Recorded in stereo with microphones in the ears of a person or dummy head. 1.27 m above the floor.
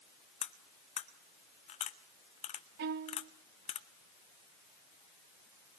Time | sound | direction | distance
0.4 | cutlery clinking | 30° left (ahead or behind) | 1.0 m
2.8 | a violin | 50° right (ahead or behind) | 0.8 m